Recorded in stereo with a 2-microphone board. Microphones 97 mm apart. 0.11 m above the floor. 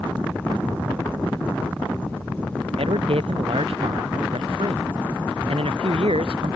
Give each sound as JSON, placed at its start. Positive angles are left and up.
{"t": 1.1, "sound": "ticking", "side_deg": -20}
{"t": 2.8, "sound": "a man speaking", "side_deg": -85}